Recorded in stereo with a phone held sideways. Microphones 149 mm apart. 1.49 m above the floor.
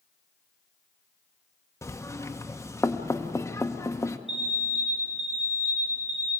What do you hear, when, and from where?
1.8 s knocking: 20° left (ahead or behind), 0.8 m
4.3 s an alarm: 5° right (ahead or behind), 8.5 m